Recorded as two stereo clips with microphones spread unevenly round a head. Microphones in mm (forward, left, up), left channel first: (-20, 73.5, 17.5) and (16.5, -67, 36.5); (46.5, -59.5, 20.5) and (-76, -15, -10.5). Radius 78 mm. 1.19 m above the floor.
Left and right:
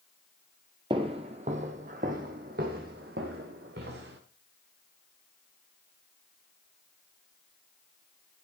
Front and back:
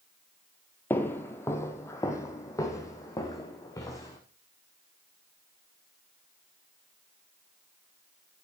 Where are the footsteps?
60° right, 1.4 m; by 4.2 s 75° right, 3.5 m.